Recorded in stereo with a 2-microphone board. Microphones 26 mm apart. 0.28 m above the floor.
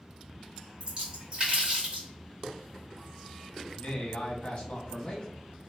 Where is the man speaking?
45° left (ahead or behind), 1.6 m.